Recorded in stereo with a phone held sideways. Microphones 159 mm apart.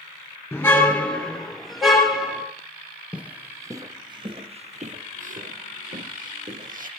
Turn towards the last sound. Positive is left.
turn(degrees=-60)  # may be behind; listen again after turning